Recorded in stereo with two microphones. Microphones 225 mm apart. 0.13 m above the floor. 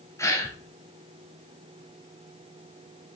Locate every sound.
0.2 s a gasp: 10° left (ahead or behind), 1.3 m